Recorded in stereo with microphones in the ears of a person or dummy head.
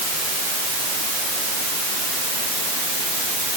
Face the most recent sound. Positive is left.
No sound to turn to.